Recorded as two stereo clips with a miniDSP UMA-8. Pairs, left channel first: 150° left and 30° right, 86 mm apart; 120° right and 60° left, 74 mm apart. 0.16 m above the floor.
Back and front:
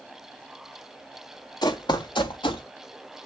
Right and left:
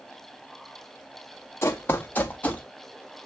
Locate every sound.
1.6 s running footsteps: 175° right, 1.1 m; by 2.6 s 170° left, 1.5 m